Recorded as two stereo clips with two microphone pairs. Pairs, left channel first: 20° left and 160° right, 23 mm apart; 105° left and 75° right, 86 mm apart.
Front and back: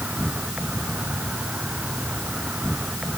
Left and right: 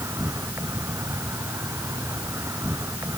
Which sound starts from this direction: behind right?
An insect, at 0.0 s.